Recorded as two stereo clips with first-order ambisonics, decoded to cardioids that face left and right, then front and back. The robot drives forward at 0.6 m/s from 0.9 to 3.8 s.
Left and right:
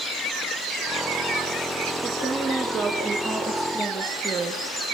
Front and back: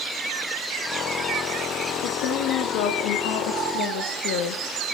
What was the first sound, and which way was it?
A woman speaking, 5° right.